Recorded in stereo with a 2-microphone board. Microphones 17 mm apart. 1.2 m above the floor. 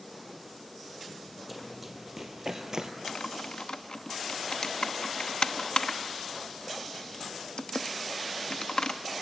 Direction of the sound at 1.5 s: Centre (ahead or behind).